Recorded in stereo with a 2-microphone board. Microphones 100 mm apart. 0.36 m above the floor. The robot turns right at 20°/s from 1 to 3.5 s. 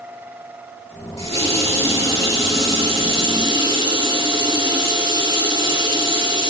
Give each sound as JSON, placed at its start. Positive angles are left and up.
{"t": 1.2, "sound": "a running tap", "azimuth_deg": -100, "distance_m": 4.0}